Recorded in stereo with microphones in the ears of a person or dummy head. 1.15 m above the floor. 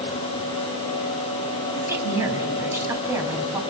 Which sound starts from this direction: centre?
A woman speaking, at 1.7 s.